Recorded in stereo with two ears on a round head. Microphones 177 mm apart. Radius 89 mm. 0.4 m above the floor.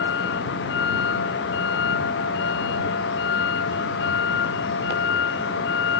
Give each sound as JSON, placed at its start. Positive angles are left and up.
{"t": 0.0, "sound": "a vehicle", "side_deg": 60}